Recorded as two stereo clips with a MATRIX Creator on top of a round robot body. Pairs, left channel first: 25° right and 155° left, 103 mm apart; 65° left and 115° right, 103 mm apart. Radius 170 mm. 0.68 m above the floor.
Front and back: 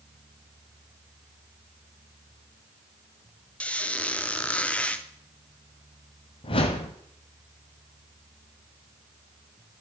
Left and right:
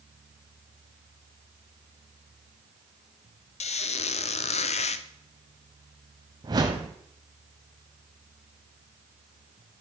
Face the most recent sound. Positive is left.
turn(degrees=-60)